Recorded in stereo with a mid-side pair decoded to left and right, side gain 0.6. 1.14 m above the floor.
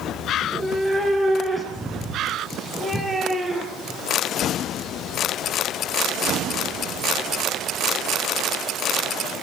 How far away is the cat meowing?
About 9 m.